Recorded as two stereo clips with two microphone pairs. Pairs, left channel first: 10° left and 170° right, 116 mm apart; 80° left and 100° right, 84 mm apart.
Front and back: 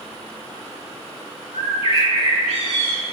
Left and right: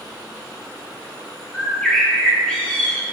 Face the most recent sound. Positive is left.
turn(degrees=5)